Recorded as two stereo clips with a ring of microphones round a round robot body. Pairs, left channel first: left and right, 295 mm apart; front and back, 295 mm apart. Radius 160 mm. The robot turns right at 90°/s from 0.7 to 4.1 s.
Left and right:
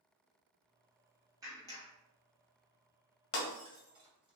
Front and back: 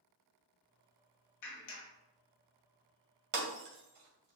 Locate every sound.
1.4 s a clap: 10° right, 1.3 m; by 1.9 s 30° left, 1.3 m
3.3 s breaking glass: 130° left, 2 m; by 4.4 s 165° right, 2 m